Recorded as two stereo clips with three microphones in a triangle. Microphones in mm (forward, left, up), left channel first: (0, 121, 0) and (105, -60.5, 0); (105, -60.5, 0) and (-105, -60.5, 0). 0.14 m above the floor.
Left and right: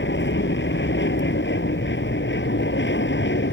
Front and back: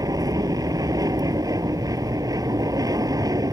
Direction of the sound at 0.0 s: 110° left.